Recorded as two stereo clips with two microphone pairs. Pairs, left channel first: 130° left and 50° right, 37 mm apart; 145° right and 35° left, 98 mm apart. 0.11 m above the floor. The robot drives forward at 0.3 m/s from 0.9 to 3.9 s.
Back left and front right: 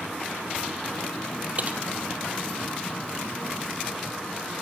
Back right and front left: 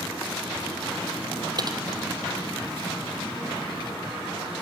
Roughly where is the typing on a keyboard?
Ahead.